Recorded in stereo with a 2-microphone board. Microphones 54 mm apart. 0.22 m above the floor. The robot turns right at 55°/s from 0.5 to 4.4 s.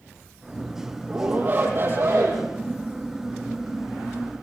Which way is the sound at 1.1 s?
170° right.